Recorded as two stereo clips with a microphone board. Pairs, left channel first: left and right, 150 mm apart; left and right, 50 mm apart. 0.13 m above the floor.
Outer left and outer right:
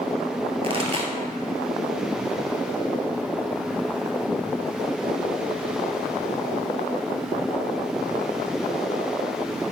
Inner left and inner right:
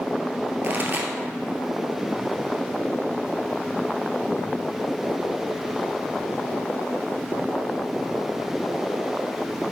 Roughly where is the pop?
Right.